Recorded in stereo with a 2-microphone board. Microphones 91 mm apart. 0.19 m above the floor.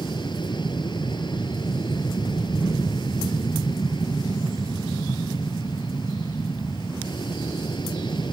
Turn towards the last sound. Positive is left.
turn(degrees=55)  # may be behind; listen again after turning